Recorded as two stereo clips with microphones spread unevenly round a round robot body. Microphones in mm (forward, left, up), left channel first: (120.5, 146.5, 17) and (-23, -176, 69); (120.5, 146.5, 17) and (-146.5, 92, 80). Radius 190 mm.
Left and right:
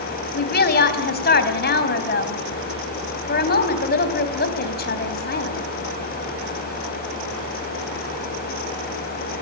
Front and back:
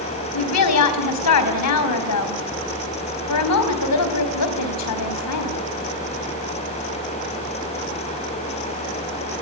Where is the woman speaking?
5° left, 4 m.